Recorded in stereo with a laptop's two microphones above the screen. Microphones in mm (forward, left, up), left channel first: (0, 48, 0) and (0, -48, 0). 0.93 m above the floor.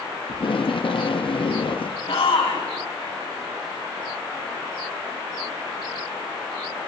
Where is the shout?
70° left (ahead or behind), 7 m.